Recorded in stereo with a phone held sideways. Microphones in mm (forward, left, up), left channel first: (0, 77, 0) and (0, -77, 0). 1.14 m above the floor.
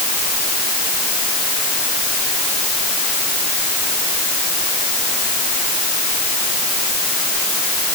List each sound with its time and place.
Only background noise.